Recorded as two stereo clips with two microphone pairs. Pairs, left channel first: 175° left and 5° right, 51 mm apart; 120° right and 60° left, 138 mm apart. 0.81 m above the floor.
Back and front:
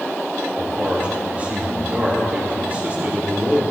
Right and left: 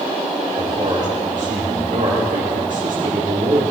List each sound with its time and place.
0.6 s a man speaking: 55° left, 2 m